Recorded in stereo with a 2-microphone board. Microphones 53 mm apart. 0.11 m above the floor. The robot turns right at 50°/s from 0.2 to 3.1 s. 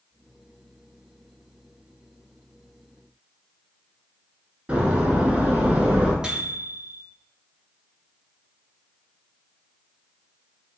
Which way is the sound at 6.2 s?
15° right (ahead or behind).